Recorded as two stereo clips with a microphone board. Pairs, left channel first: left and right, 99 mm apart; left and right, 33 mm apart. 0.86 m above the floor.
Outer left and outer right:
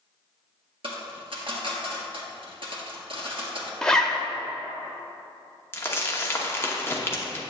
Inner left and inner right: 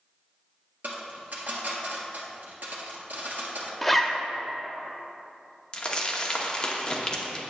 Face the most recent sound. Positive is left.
turn(degrees=25)  # may be behind; listen again after turning